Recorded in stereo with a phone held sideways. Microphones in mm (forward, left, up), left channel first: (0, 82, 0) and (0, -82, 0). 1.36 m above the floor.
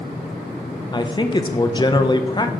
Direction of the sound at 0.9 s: 25° left (ahead or behind).